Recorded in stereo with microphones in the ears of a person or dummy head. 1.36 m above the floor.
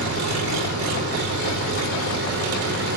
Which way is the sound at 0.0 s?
75° right (ahead or behind).